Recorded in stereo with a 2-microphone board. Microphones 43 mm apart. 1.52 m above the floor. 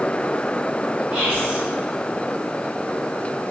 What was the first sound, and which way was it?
Whispering, 70° right (ahead or behind).